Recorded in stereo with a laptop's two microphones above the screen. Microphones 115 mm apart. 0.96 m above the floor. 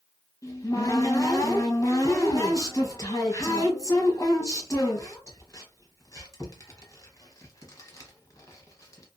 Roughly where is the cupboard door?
Left.